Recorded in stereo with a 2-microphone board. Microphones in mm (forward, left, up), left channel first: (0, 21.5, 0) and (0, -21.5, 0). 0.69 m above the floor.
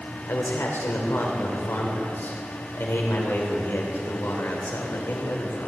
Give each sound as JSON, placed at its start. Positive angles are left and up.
{"t": 0.3, "sound": "a man speaking", "side_deg": 70, "distance_m": 2.5}